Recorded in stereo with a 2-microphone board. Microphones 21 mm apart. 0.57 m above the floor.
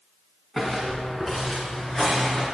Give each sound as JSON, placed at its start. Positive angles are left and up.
{"t": 0.6, "sound": "footsteps", "side_deg": 20, "distance_m": 2.5}